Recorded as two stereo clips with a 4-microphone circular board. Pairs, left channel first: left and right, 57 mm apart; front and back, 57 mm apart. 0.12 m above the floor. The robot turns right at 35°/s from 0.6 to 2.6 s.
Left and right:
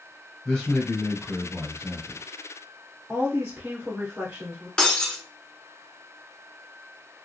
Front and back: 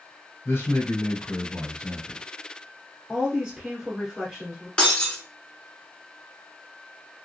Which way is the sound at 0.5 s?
15° left.